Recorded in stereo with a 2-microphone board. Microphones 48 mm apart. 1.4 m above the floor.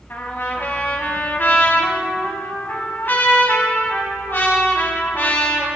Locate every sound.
0.1 s a trumpet: 45° left (ahead or behind), 3 m